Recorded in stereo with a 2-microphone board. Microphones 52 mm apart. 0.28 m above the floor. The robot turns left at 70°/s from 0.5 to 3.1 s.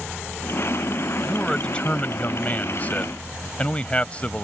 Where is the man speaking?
175° left; by 4.4 s 45° left.